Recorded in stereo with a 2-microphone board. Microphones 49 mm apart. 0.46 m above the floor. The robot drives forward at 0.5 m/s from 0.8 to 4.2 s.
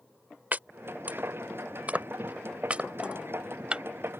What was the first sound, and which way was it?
Chopping, 40° right (ahead or behind).